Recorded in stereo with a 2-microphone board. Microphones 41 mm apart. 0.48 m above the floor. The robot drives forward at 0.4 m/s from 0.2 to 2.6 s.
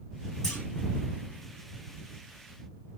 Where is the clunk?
15° left (ahead or behind), 1.4 m.